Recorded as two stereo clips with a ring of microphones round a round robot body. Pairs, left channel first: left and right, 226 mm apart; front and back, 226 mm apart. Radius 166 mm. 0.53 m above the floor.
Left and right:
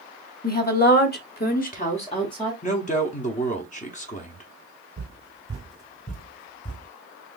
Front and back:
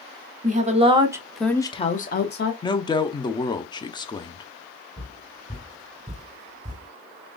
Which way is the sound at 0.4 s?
130° left.